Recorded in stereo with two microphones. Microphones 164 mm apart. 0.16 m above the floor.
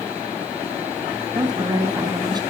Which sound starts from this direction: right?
A woman speaking, at 1.4 s.